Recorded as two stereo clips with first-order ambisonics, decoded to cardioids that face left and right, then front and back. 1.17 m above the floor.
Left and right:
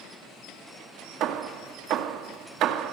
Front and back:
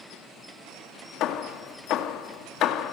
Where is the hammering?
45° right, 2.0 m.